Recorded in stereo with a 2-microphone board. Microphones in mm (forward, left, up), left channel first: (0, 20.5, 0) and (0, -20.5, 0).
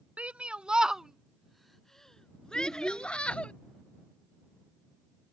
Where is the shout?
35° right (ahead or behind); by 3.5 s 30° left (ahead or behind).